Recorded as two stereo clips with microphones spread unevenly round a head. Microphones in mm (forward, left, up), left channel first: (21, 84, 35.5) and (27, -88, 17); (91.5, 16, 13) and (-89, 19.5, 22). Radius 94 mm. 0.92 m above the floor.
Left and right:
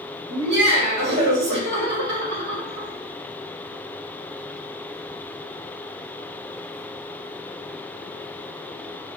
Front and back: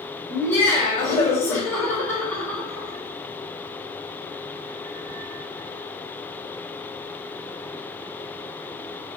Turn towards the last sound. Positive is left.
turn(degrees=-80)